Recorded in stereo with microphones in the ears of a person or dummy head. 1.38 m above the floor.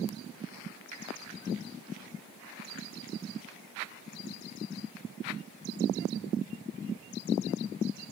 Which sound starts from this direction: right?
A finger snap, at 0.9 s.